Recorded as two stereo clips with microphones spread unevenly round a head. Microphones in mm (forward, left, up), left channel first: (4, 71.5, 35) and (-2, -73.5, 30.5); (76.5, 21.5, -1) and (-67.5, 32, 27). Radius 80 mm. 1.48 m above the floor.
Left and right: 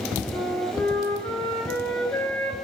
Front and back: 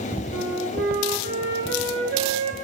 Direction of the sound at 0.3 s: 165° left.